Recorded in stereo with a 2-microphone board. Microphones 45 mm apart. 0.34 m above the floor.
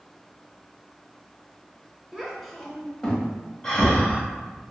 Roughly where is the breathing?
Centre.